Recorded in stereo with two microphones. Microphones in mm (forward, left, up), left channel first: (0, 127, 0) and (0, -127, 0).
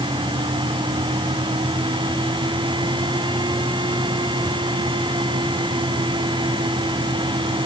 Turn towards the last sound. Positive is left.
No sound to turn to.